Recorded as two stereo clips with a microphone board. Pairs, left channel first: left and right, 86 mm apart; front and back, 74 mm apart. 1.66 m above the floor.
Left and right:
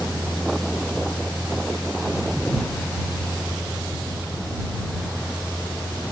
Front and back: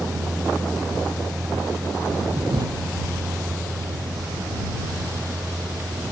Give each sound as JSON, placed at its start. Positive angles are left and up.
{"t": 0.0, "sound": "a vehicle", "azimuth_deg": 175}